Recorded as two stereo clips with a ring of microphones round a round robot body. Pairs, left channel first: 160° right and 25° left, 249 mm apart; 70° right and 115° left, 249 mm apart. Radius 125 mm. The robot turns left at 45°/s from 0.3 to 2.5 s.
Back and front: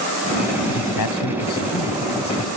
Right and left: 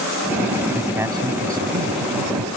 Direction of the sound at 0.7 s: 150° right.